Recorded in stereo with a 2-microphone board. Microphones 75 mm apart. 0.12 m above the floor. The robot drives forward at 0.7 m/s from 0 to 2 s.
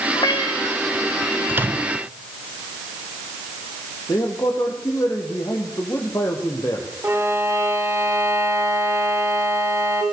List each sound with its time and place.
0.1 s a cat meowing: 75° left (ahead or behind), 3 m; by 0.8 s 85° left, 3 m
1.5 s a microwave: 30° right (ahead or behind), 1.3 m; by 2.0 s 25° right (ahead or behind), 1.3 m
4.1 s a man speaking: 45° left (ahead or behind), 4.5 m
7.0 s a violin: 35° right (ahead or behind), 4 m